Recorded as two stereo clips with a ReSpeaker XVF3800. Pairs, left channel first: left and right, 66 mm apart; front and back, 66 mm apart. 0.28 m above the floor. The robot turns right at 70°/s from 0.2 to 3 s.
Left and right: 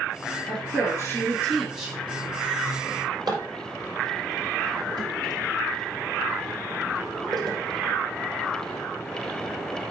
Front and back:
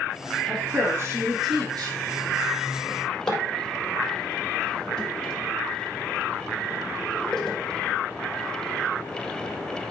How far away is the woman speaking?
About 4.5 m.